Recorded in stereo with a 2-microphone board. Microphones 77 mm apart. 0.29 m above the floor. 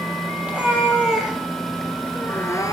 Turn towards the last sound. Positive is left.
turn(degrees=50)  # may be behind; listen again after turning